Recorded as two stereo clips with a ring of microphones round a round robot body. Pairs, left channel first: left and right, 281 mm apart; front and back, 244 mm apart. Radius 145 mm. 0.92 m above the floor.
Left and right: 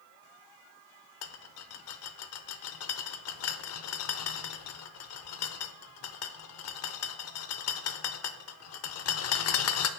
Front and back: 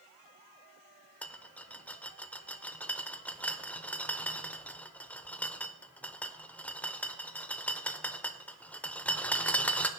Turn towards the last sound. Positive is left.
turn(degrees=80)